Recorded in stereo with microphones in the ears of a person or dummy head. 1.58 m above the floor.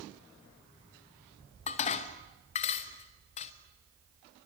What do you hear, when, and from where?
1.7 s dishes clattering: 40° left (ahead or behind), 1.1 m